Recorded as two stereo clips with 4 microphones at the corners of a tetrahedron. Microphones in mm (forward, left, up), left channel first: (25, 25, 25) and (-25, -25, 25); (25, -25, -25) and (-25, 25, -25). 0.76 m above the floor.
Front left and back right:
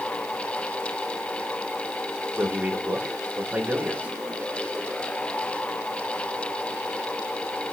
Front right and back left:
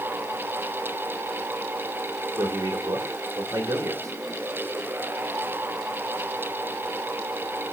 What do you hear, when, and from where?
2.4 s a man speaking: 155° left, 1.8 m